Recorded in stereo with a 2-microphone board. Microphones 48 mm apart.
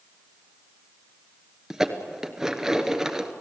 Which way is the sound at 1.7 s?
15° right (ahead or behind).